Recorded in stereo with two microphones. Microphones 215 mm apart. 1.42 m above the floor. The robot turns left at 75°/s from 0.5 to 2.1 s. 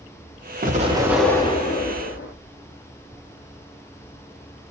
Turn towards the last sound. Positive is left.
turn(degrees=115)